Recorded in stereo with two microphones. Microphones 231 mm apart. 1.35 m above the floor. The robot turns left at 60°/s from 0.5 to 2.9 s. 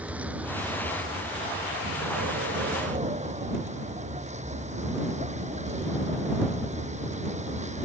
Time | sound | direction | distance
0.0 | a vehicle | 5° right | ?